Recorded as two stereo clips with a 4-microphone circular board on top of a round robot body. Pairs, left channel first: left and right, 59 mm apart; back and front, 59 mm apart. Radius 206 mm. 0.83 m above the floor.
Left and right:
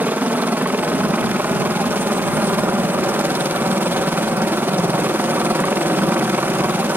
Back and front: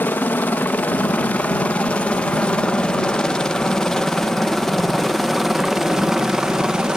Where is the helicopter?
135° right; by 7.0 s 70° right.